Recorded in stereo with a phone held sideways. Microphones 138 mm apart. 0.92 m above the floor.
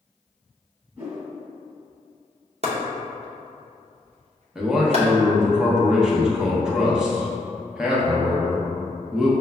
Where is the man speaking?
5° right (ahead or behind), 0.7 m.